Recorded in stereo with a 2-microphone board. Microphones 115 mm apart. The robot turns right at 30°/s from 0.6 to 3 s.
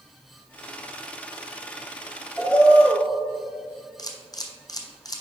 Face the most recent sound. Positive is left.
turn(degrees=35)  # may be behind; listen again after turning